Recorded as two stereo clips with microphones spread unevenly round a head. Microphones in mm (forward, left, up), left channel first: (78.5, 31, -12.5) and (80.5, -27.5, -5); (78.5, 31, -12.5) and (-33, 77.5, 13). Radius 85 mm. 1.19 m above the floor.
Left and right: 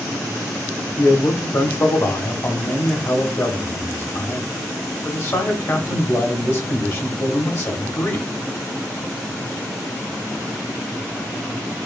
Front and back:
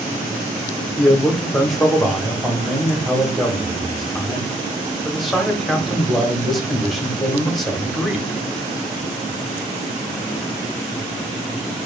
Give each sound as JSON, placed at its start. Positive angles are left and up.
{"t": 1.0, "sound": "a man speaking", "azimuth_deg": 60, "distance_m": 1.2}